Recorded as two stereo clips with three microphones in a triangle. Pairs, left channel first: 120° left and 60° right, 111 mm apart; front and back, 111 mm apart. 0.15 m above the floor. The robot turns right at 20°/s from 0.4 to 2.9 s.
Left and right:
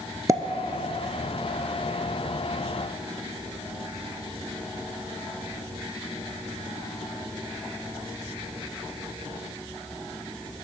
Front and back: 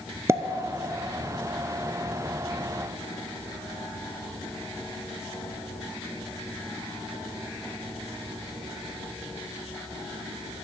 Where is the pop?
115° right, 0.5 m.